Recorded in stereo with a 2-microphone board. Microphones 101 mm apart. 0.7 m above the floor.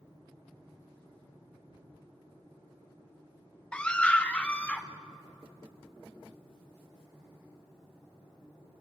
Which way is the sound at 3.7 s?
10° left (ahead or behind).